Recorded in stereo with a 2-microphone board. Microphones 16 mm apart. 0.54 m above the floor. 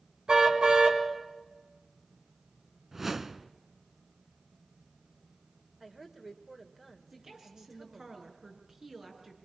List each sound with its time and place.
0.3 s a car horn: 85° right, 3 m
2.9 s a whoosh: 20° right (ahead or behind), 0.9 m
5.8 s a woman speaking: 15° right (ahead or behind), 2.5 m
7.1 s a woman speaking: 50° right (ahead or behind), 6 m